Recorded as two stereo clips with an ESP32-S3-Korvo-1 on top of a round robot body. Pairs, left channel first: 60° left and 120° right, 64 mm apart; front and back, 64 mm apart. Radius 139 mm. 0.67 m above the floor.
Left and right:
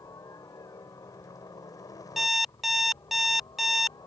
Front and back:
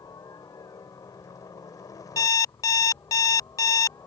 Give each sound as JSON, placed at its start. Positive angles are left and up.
{"t": 0.0, "sound": "a helicopter", "azimuth_deg": 25}
{"t": 2.2, "sound": "an alarm clock", "azimuth_deg": -35}